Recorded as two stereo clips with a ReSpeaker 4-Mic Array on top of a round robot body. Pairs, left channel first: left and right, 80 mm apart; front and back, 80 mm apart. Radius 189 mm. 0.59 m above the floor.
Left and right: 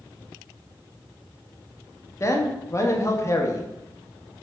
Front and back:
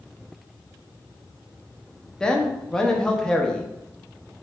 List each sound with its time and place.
2.2 s a man speaking: 75° left, 1.0 m